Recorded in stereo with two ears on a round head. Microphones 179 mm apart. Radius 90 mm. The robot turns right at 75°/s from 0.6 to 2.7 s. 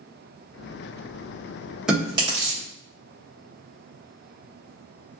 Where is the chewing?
5° right (ahead or behind), 1.4 m; by 2.6 s 50° right (ahead or behind), 1.4 m.